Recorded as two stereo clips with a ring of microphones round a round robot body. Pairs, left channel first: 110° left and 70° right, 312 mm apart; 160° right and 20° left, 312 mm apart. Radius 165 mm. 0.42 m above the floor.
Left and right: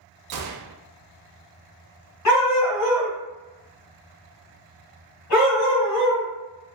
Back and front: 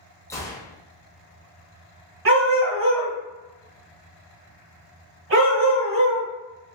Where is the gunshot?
80° right, 0.5 m.